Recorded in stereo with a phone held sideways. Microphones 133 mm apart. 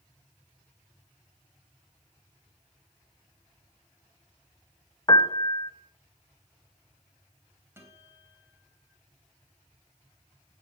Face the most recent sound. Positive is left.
turn(degrees=-20)  # may be behind; listen again after turning